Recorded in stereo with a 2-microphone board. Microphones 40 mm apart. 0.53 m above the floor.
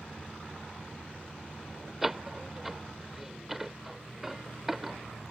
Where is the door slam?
5° right (ahead or behind).